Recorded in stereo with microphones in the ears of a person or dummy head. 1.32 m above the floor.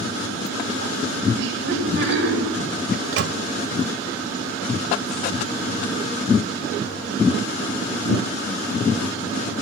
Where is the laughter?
65° right (ahead or behind), 9 m.